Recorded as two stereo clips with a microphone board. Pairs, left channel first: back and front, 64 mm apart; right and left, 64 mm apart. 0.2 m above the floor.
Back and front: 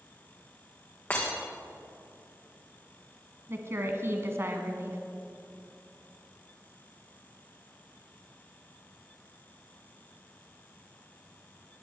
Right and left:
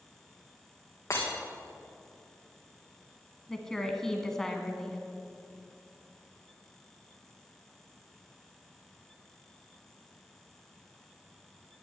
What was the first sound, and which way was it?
Breaking glass, 125° right.